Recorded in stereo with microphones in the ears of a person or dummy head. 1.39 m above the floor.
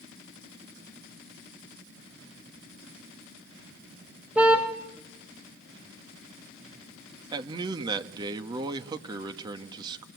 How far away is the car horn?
About 4 m.